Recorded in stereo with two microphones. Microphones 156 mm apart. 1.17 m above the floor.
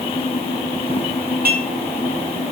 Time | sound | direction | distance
1.4 | dishes clattering | 60° right (ahead or behind) | 8 m